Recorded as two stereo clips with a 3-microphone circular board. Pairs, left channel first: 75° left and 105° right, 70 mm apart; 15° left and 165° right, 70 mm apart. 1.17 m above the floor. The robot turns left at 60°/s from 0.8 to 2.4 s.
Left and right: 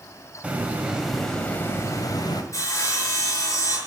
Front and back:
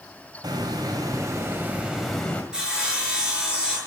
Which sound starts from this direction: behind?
A hiss, at 0.4 s.